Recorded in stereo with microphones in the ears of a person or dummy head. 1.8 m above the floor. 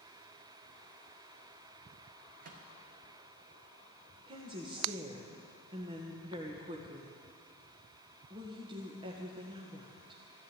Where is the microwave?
60° right (ahead or behind), 1.4 m.